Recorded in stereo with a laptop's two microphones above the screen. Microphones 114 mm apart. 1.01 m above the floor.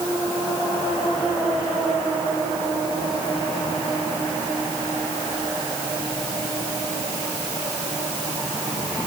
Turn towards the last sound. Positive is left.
No sound to turn to.